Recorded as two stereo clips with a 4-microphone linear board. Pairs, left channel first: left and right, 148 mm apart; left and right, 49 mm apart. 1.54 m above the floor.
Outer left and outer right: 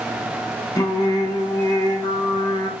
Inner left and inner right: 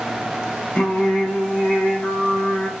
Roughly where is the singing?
Left.